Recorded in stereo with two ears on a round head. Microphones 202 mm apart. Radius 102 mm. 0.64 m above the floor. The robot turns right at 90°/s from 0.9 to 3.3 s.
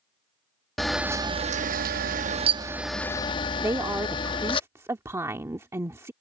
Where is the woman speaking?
15° right (ahead or behind).